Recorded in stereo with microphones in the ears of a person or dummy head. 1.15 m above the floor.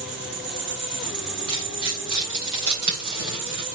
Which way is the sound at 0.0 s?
5° right (ahead or behind).